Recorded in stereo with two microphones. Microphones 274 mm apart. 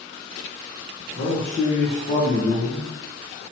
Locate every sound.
1.1 s a man speaking: 25° left (ahead or behind), 1.0 m